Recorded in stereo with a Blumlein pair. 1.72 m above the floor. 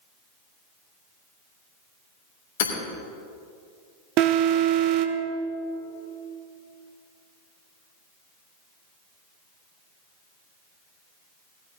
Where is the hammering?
55° left, 3 m.